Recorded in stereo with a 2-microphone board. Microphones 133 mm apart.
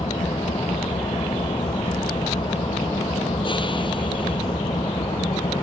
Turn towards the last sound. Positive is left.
turn(degrees=40)  # may be behind; listen again after turning